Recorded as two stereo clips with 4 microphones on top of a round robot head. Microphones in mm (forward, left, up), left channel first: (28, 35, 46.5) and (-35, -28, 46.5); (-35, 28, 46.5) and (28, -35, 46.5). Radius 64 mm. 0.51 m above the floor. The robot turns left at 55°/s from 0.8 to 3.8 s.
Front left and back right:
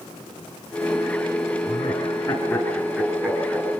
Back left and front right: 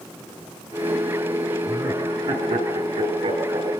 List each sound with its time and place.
1.7 s laughter: 20° left, 9 m; by 3.8 s 95° right, 9 m